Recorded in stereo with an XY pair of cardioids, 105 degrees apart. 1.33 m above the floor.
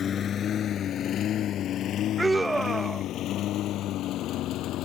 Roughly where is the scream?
Ahead.